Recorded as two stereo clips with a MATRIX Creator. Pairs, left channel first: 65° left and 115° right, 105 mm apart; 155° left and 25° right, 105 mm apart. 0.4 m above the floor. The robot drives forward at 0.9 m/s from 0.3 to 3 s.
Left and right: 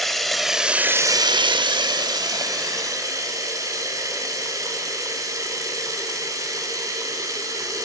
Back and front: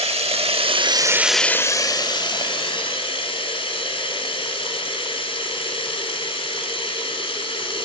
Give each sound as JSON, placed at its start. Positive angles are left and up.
{"t": 0.0, "sound": "running water", "azimuth_deg": -20, "distance_m": 0.9}